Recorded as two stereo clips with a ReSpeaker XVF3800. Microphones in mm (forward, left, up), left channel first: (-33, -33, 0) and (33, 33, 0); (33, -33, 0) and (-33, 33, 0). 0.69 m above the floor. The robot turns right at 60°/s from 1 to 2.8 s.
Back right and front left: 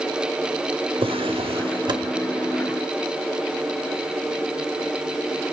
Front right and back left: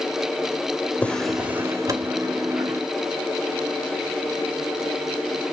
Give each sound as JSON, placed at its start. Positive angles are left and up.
{"t": 1.0, "sound": "a drawer", "azimuth_deg": 30, "distance_m": 1.2}